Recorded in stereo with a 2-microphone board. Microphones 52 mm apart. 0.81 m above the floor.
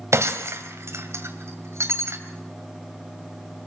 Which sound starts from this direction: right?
Breaking glass, at 0.1 s.